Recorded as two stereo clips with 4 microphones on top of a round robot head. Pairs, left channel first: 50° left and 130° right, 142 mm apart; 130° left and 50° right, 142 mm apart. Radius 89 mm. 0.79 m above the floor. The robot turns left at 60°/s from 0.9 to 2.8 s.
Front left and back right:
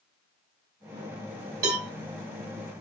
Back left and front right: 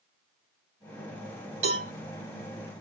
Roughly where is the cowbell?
Right.